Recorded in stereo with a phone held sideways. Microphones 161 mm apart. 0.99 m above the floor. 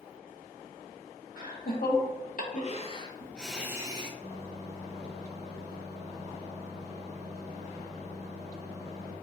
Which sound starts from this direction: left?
Laughter, at 1.4 s.